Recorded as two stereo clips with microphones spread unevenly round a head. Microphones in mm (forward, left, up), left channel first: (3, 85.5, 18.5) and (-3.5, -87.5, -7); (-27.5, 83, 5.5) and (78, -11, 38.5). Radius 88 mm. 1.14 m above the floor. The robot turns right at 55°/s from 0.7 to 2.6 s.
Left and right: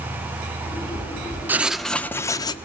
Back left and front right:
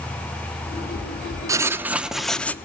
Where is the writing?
10° right, 0.7 m; by 2.5 s 50° left, 0.7 m.